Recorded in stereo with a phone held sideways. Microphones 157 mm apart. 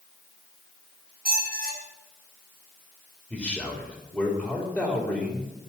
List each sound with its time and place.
1.2 s a squeak: 75° right (ahead or behind), 4.5 m
3.3 s a man speaking: centre (ahead or behind), 3.5 m